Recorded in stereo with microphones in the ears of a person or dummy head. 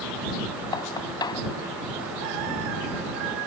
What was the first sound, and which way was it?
Knocking, 25° left (ahead or behind).